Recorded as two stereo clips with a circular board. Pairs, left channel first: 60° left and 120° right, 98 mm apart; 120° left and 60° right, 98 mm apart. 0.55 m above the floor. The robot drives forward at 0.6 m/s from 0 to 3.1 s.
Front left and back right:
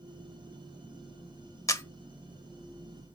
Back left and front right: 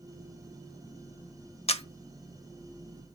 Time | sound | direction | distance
1.7 | a camera shutter | 115° left | 0.9 m